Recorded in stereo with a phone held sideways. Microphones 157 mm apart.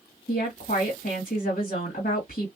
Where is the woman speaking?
60° left (ahead or behind), 1.6 m.